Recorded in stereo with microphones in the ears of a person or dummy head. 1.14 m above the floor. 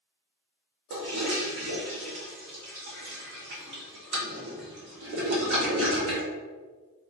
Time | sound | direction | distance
0.9 | a toilet flushing | 60° right (ahead or behind) | 1.3 m